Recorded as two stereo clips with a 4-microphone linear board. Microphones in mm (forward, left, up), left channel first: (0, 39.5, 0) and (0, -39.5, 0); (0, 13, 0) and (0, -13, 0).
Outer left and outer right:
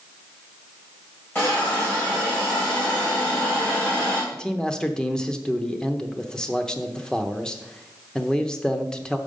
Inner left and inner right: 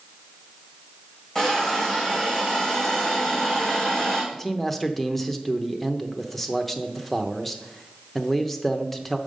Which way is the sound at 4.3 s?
10° left (ahead or behind).